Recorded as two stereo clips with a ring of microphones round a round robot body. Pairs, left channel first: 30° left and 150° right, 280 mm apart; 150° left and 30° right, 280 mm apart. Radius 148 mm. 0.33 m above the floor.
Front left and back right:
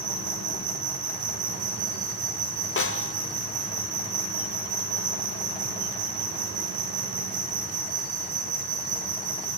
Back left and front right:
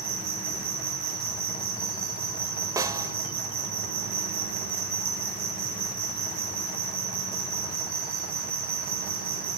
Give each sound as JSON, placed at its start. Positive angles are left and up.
{"t": 0.0, "sound": "an insect", "azimuth_deg": -85, "distance_m": 9.5}
{"t": 2.8, "sound": "a snare drum", "azimuth_deg": 45, "distance_m": 1.0}